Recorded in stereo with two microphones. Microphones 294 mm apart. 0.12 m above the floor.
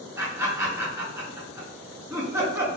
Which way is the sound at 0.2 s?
10° right (ahead or behind).